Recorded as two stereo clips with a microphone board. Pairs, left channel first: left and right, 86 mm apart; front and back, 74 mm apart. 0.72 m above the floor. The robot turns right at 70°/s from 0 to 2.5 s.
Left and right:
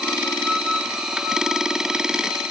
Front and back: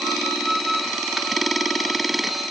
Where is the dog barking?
No dog barking in this recording.